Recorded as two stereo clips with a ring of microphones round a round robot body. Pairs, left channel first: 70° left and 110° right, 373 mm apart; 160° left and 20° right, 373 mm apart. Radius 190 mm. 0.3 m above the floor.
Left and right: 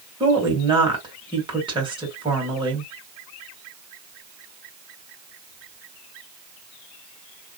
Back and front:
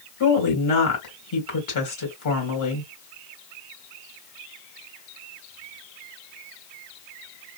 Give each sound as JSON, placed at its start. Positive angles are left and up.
{"t": 0.2, "sound": "a woman speaking", "azimuth_deg": 175, "distance_m": 2.5}